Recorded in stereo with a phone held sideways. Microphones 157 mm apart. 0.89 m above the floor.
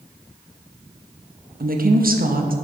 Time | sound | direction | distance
1.6 | a woman speaking | 65° right (ahead or behind) | 0.7 m